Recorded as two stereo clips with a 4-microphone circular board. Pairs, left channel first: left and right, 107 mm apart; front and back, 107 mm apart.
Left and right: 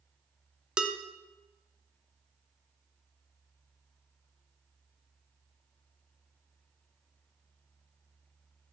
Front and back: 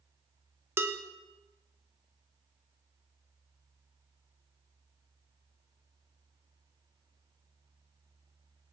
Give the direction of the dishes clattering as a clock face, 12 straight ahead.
5 o'clock.